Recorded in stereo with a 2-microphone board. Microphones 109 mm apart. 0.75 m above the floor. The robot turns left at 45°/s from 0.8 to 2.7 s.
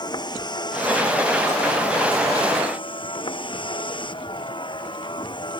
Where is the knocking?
I don't hear knocking.